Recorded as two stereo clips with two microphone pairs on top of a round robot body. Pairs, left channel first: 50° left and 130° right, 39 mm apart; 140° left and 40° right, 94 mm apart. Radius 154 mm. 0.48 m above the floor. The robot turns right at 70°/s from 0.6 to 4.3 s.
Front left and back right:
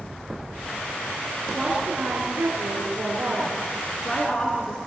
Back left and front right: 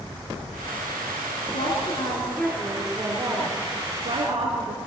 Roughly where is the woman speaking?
Behind left.